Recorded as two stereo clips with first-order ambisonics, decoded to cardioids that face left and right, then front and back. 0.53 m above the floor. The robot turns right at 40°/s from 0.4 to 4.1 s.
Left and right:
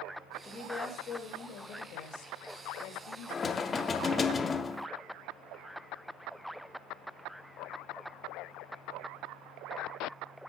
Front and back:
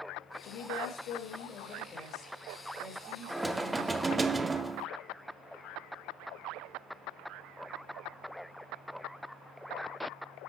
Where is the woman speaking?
15° left, 1.9 m; by 4.3 s 160° left, 1.9 m.